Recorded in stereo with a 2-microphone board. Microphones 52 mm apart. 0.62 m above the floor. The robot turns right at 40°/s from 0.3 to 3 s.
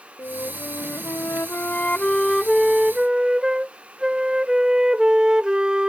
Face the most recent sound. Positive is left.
turn(degrees=-160)